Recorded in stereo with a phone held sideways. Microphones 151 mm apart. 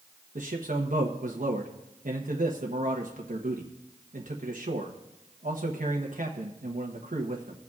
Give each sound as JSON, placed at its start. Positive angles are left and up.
{"t": 0.3, "sound": "a man speaking", "side_deg": -60, "distance_m": 1.0}